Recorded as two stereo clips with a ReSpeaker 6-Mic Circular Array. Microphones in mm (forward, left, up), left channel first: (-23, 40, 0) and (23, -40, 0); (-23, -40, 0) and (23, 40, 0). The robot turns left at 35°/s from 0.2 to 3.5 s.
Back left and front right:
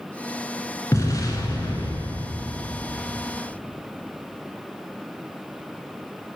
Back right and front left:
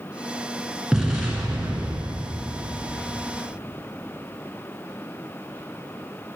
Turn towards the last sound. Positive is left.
turn(degrees=60)